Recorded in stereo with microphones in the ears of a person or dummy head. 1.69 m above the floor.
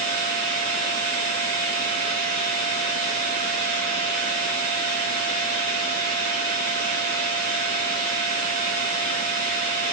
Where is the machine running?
45° right (ahead or behind), 2 m.